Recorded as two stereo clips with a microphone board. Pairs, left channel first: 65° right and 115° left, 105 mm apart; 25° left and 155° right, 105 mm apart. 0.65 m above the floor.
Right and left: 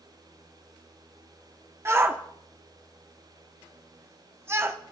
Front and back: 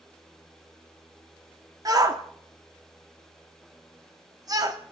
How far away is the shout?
About 1.3 m.